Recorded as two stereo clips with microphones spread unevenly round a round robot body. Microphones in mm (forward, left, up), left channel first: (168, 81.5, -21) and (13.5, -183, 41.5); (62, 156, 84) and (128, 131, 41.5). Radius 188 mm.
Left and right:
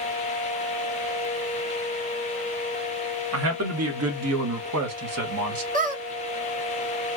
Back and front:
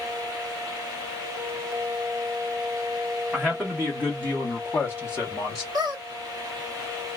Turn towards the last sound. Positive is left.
turn(degrees=-55)